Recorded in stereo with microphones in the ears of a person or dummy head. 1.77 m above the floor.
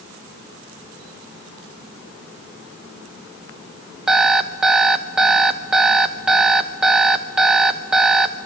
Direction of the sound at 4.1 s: Centre (ahead or behind).